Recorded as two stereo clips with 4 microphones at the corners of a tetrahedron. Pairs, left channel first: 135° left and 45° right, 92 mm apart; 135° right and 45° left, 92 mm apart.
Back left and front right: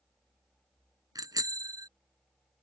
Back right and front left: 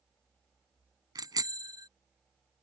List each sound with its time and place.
1.1 s a bicycle bell: straight ahead